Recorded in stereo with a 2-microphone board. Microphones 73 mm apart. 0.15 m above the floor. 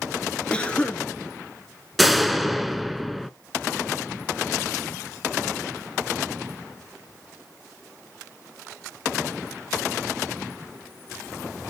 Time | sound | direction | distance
0.5 | a cough | 15° left (ahead or behind) | 2.5 m
2.0 | a door slam | centre (ahead or behind) | 1.0 m